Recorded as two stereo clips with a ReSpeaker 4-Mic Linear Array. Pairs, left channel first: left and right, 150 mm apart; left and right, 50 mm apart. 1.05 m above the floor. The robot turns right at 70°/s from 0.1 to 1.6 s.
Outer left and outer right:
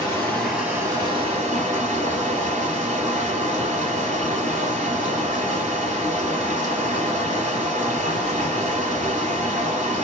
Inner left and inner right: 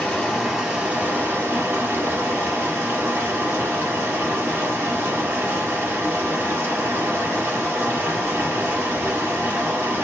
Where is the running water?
155° left, 1.4 m; by 10.0 s 100° right, 1.4 m.